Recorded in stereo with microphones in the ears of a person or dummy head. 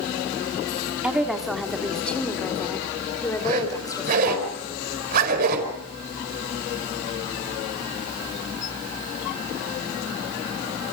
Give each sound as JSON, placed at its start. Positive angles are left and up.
{"t": 1.0, "sound": "a woman speaking", "side_deg": -10, "distance_m": 2.5}
{"t": 3.4, "sound": "a zipper", "side_deg": -50, "distance_m": 5.0}